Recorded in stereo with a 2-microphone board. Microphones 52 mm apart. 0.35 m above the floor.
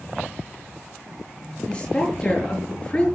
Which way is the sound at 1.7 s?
25° left (ahead or behind).